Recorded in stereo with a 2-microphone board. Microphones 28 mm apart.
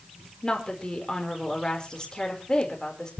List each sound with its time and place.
0.4 s a woman speaking: 30° left (ahead or behind), 4.5 m